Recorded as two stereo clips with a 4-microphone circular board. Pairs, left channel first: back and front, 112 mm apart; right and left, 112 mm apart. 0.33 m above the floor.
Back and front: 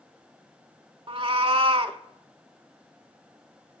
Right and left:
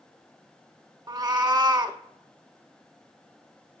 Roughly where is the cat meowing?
Ahead left.